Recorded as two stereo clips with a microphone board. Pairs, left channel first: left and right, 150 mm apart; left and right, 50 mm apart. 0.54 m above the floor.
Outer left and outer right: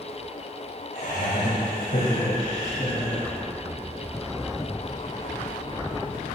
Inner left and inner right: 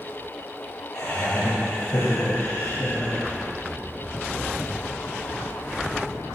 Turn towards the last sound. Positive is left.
turn(degrees=40)  # may be behind; listen again after turning